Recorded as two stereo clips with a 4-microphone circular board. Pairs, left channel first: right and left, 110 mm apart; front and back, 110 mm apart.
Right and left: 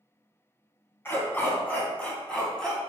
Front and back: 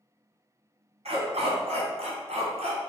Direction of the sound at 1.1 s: 160° right.